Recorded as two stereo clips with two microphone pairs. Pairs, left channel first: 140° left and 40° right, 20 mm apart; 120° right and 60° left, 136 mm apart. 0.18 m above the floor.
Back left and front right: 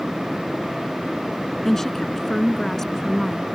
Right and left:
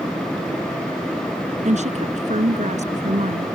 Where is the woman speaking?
70° left.